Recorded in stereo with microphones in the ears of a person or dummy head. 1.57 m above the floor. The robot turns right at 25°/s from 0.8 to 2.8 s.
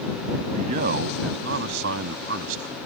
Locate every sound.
0.6 s a man speaking: 130° right; by 2.8 s 80° right